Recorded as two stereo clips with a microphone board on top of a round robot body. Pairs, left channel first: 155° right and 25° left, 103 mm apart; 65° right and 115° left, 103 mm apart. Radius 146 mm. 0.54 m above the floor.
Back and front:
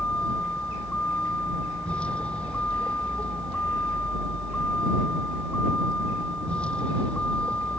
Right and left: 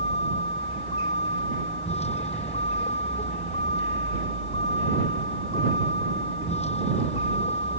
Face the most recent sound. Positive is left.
turn(degrees=-80)